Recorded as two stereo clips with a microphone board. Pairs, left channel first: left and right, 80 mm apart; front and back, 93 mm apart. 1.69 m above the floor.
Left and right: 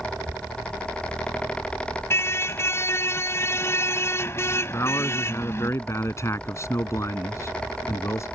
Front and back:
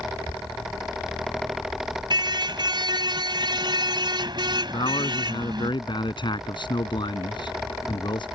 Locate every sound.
2.1 s a car horn: 145° left
4.7 s a man speaking: 35° left